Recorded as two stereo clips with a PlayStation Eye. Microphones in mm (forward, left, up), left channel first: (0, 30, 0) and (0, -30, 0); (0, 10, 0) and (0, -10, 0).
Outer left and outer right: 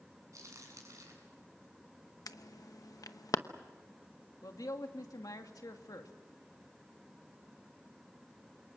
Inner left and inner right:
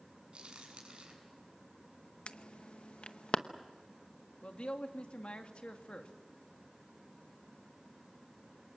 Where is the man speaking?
80° left, 2 m.